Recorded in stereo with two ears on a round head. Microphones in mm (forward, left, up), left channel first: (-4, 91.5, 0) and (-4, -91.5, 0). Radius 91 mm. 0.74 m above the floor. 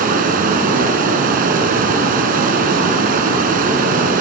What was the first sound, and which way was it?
Running water, 45° right (ahead or behind).